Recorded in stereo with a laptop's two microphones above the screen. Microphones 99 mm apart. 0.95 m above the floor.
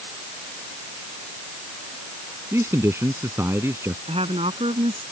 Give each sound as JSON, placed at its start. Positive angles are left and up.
{"t": 2.5, "sound": "a man speaking", "side_deg": -25}
{"t": 4.1, "sound": "a woman speaking", "side_deg": -85}